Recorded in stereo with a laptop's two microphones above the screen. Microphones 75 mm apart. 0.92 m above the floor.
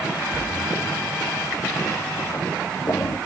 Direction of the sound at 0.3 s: 45° left (ahead or behind).